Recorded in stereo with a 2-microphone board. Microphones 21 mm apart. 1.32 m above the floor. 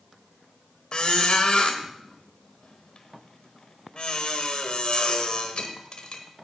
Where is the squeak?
50° left (ahead or behind), 1.4 m.